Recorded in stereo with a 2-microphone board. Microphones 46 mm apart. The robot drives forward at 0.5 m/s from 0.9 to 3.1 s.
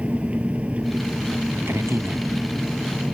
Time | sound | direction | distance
0.0 | an engine running | 25° right (ahead or behind) | ?
1.7 | a man speaking | 70° right (ahead or behind) | ?